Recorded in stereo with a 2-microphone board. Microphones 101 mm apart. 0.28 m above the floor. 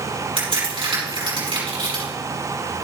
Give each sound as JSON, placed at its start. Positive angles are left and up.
{"t": 0.4, "sound": "a crack", "side_deg": -60, "distance_m": 6.0}